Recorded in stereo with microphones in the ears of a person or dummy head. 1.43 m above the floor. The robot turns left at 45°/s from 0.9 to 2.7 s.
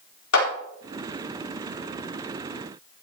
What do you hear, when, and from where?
0.3 s a clap: 90° left, 4 m